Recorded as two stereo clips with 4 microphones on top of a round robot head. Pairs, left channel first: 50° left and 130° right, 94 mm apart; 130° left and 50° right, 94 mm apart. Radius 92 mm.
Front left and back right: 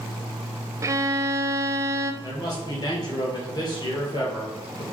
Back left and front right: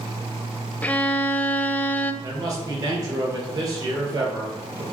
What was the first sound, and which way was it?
A violin, 165° right.